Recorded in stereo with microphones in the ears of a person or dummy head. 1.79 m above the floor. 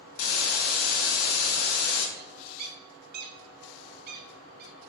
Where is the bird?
50° right (ahead or behind), 0.9 m.